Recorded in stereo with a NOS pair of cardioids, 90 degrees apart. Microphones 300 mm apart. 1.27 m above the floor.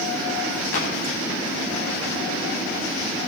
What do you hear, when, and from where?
0.7 s a clap: 60° left, 9.5 m